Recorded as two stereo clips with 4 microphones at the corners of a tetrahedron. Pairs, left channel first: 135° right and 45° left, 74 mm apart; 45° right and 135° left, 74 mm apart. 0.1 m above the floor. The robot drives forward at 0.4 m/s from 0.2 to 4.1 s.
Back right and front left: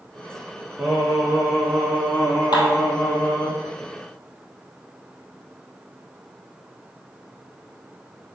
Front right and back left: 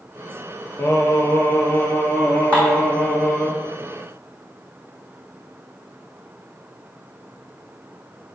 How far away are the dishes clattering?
About 3 m.